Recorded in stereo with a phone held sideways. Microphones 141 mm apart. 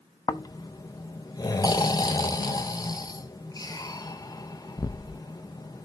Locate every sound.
0.3 s snoring: 30° left (ahead or behind), 0.5 m